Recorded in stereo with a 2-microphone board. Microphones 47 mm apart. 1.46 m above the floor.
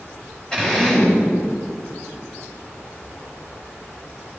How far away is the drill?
About 4 m.